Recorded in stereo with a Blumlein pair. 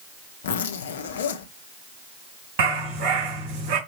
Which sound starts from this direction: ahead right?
A dog barking, at 2.6 s.